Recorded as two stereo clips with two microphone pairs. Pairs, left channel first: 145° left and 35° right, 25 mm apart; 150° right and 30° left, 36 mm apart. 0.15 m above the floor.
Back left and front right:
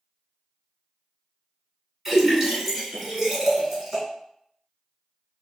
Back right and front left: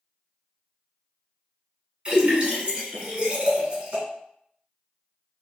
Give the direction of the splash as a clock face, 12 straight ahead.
11 o'clock.